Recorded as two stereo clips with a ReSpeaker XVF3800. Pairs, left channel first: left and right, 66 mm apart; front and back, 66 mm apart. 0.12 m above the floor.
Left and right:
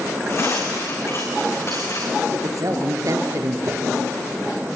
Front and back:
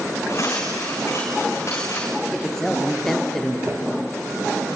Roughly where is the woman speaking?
Right.